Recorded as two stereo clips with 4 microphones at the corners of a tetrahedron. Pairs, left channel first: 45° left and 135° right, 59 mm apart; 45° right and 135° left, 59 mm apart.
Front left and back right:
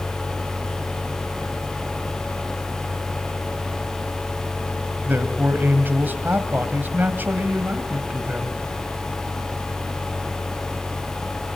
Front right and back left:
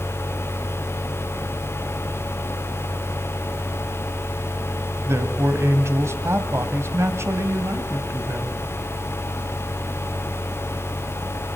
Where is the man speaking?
170° left, 2.0 m.